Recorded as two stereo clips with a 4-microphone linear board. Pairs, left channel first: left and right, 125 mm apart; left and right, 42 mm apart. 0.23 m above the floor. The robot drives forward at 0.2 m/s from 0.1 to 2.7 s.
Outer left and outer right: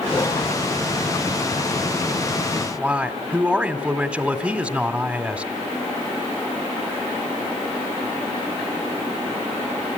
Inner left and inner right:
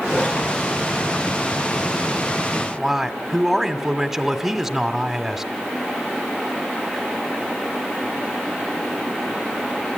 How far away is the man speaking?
About 1.7 m.